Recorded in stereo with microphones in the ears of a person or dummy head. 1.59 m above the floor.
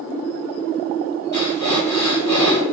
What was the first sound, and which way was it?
Breathing, 15° left (ahead or behind).